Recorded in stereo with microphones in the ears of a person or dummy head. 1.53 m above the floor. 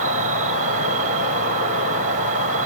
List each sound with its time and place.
0.0 s an insect: 35° right (ahead or behind), 1.5 m